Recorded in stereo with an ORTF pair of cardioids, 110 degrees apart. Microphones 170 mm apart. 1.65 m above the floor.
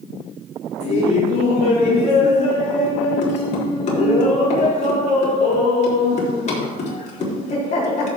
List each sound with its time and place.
0.8 s laughter: 45° left, 4 m